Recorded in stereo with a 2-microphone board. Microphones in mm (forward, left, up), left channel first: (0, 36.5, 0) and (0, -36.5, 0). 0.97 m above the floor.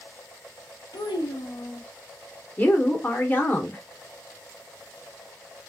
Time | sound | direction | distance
0.9 | a child speaking | 80° left | 0.9 m
2.6 | a woman speaking | 25° left (ahead or behind) | 1.1 m